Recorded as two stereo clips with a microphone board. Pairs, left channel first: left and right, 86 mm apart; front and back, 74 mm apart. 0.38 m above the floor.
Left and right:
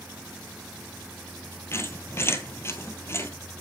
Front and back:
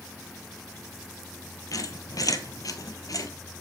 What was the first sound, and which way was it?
A squeak, 30° left.